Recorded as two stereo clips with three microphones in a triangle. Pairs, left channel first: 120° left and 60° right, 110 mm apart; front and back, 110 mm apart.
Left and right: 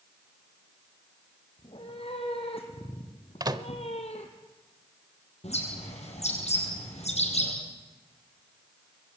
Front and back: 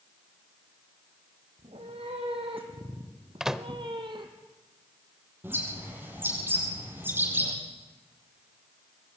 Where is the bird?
110° left, 7 m.